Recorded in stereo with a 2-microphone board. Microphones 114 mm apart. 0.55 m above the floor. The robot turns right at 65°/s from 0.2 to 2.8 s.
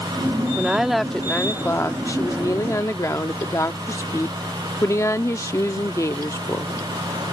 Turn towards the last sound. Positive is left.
turn(degrees=25)  # may be behind; listen again after turning